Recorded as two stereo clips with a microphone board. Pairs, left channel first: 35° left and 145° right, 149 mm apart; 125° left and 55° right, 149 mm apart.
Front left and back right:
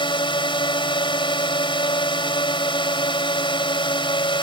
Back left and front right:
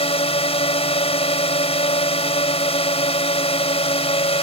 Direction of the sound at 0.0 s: 85° left.